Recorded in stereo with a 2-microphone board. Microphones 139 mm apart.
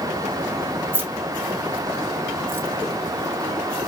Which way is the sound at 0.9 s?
15° right (ahead or behind).